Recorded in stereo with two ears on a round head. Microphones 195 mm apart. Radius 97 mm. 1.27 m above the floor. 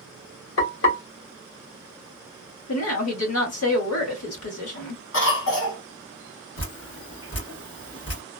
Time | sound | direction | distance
0.6 | frying | 65° left (ahead or behind) | 1.3 m
2.7 | a woman speaking | 80° left | 1.6 m
5.1 | a cough | 75° left (ahead or behind) | 1.5 m
6.6 | dripping | 75° left (ahead or behind) | 1.6 m